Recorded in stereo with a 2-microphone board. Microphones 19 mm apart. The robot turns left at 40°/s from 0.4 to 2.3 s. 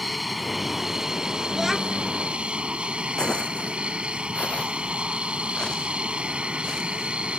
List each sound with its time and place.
0.0 s an aircraft: straight ahead; by 7.4 s 75° right
1.5 s a child speaking: 20° right (ahead or behind); by 2.1 s 5° left (ahead or behind)
3.2 s footsteps: 55° left (ahead or behind); by 7.2 s 35° left (ahead or behind)